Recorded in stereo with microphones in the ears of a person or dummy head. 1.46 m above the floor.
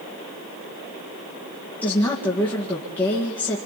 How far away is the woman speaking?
About 1.9 m.